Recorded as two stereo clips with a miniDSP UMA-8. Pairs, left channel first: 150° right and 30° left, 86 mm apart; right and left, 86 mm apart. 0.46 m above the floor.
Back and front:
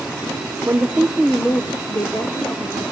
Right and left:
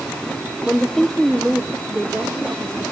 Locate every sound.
0.7 s a woman speaking: 10° right, 1.0 m; by 2.9 s 170° left, 2 m